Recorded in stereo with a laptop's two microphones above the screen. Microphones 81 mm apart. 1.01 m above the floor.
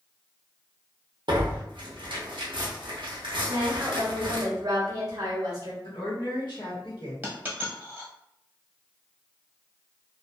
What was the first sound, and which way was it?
Tearing paper, 70° right (ahead or behind).